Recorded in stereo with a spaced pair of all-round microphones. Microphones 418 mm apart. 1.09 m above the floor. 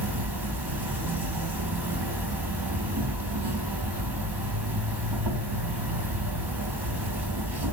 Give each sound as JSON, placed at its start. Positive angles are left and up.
{"t": 0.0, "sound": "an insect", "side_deg": -65, "distance_m": 2.5}